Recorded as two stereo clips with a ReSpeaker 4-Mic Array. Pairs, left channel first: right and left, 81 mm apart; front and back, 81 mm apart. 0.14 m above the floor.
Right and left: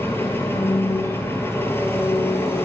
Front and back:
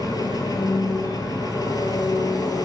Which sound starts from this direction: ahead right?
An engine running, at 0.0 s.